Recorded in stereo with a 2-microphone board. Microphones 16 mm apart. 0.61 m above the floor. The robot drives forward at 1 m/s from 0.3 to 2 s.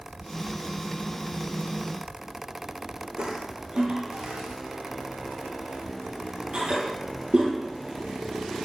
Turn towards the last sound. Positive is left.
turn(degrees=-85)